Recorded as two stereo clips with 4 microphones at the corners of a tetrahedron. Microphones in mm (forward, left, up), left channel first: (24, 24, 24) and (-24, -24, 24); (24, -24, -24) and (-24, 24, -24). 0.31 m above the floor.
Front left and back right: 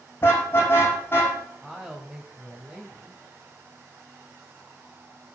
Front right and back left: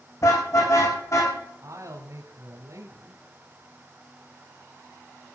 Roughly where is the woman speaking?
Behind left.